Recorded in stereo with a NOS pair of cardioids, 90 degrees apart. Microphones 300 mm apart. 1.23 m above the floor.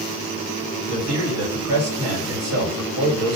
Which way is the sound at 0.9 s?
55° right.